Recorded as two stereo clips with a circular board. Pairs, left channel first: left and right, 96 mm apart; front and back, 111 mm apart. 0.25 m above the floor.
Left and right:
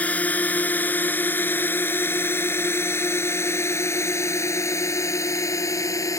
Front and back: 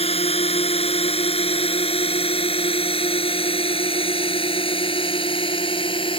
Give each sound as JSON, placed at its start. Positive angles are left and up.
{"t": 0.0, "sound": "a drone", "azimuth_deg": 15}